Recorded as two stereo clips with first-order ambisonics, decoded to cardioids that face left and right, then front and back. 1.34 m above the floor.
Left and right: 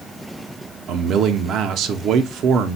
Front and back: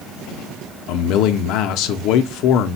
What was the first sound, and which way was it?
A man speaking, 40° right.